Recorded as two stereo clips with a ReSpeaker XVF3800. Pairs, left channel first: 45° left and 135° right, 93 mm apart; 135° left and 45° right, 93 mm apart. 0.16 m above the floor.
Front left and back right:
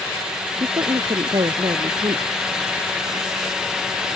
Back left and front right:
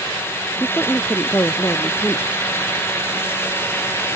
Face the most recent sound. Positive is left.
turn(degrees=-160)